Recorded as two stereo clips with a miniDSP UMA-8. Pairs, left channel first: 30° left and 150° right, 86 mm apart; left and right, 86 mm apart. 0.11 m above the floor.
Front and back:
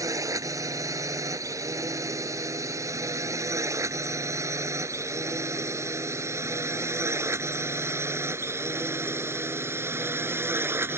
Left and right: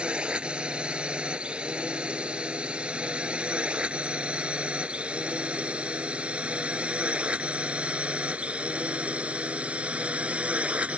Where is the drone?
160° right; by 11.0 s 145° right.